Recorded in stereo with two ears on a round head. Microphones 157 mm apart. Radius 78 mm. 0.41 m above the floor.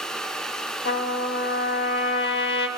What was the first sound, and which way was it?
A trumpet, 65° left (ahead or behind).